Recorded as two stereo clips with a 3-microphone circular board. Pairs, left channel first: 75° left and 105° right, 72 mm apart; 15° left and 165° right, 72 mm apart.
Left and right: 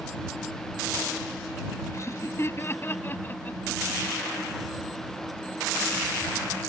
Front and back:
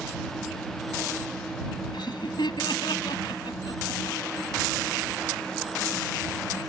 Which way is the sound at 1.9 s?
25° left.